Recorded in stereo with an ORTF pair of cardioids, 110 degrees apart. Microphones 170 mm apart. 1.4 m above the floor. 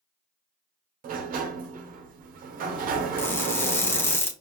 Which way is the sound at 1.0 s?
60° right.